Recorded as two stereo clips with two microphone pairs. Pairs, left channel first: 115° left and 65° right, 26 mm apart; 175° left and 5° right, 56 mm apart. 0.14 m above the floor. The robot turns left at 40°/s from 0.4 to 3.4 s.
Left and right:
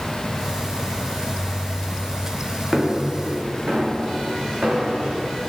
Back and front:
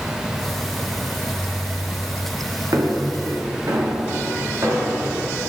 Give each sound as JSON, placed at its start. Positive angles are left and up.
{"t": 2.7, "sound": "footsteps", "azimuth_deg": 5, "distance_m": 2.5}